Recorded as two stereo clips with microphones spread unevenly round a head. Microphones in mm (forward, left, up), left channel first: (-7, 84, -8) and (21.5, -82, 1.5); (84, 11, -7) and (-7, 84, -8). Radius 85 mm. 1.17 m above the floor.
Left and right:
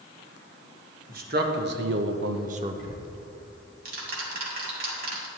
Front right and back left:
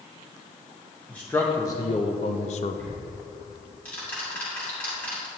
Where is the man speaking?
120° right, 1.4 m; by 2.8 s 10° right, 0.6 m.